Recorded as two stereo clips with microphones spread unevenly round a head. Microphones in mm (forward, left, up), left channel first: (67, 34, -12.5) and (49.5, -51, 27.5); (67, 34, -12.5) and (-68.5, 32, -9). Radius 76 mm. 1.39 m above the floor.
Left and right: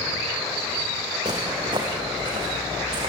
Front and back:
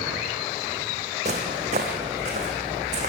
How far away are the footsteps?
About 4 m.